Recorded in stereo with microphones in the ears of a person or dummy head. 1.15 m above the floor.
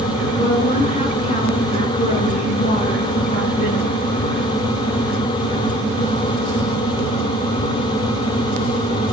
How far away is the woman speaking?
About 10 m.